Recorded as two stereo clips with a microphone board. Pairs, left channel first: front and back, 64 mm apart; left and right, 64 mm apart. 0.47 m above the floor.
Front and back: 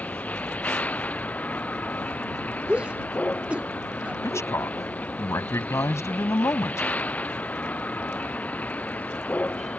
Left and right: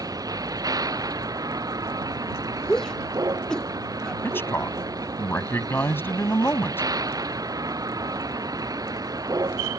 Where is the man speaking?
35° left.